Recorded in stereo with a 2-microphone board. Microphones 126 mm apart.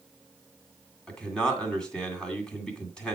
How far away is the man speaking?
About 2 m.